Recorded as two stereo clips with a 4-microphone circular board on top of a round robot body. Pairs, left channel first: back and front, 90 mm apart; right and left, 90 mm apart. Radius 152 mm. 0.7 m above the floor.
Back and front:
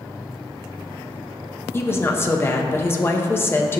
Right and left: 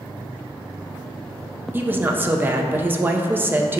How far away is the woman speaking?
About 0.6 m.